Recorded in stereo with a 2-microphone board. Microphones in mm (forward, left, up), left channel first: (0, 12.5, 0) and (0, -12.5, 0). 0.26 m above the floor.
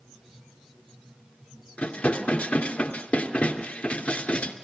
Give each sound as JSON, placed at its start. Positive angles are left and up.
{"t": 1.8, "sound": "dishes clattering", "side_deg": 70, "distance_m": 3.0}